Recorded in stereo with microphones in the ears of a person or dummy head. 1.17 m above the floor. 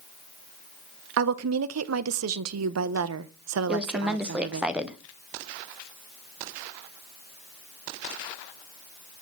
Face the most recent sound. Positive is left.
turn(degrees=-5)  # may be behind; listen again after turning